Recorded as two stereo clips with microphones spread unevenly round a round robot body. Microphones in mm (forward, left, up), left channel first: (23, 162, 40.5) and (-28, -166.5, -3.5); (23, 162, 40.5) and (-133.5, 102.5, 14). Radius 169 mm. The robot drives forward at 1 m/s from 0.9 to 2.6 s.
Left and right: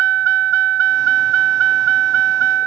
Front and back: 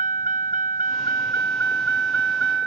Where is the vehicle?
90° right; by 2.7 s 110° right.